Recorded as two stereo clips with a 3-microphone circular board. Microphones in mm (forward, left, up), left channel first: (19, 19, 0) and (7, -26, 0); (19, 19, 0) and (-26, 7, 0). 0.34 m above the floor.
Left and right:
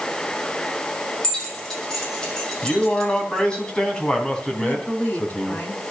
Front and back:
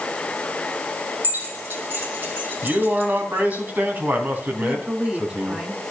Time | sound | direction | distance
1.2 | keys jangling | 150° left | 7.5 m
2.6 | a man speaking | 145° left | 3.5 m
4.6 | a woman speaking | 120° left | 3.5 m